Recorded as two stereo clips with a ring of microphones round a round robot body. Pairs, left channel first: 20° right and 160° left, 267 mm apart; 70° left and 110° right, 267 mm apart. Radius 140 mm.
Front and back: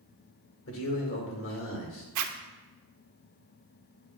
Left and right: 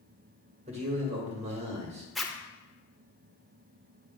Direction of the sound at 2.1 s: 155° left.